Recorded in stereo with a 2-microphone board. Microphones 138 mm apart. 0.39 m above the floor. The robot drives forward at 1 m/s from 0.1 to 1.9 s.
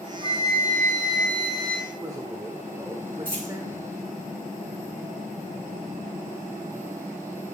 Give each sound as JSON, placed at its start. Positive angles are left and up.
{"t": 0.2, "sound": "a flute", "side_deg": -45, "distance_m": 2.5}
{"t": 1.9, "sound": "a man speaking", "side_deg": -25, "distance_m": 1.2}
{"t": 3.2, "sound": "a dropped coin", "side_deg": -35, "distance_m": 5.5}